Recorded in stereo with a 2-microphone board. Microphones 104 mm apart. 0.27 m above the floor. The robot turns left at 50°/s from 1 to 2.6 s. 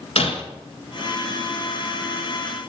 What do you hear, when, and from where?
0.2 s breaking glass: 70° left (ahead or behind), 1.9 m